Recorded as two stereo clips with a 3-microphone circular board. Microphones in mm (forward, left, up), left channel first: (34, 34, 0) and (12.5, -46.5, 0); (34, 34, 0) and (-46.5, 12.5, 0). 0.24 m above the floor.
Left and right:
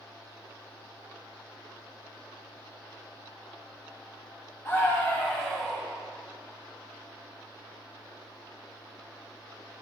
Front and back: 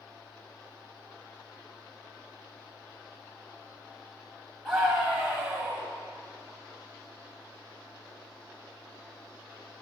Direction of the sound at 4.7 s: 100° left.